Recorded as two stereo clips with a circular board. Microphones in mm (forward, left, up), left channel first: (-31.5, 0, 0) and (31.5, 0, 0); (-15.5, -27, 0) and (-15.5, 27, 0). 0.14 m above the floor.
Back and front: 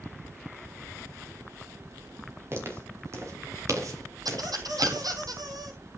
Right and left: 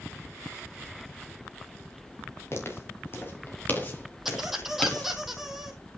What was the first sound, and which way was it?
Footsteps, 50° right.